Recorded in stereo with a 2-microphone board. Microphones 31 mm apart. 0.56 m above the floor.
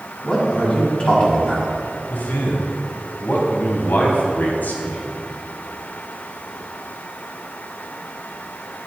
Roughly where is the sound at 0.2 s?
Left.